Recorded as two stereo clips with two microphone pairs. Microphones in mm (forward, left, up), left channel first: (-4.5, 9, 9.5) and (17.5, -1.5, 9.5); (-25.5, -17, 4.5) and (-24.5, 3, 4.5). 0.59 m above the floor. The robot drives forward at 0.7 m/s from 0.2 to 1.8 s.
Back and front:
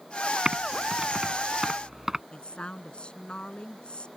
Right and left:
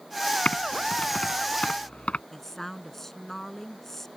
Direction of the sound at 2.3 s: 165° right.